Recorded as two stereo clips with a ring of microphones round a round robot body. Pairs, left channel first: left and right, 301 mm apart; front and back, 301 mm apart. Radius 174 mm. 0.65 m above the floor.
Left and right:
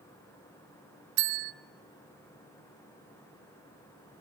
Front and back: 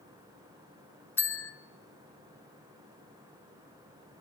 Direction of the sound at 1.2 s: 85° right.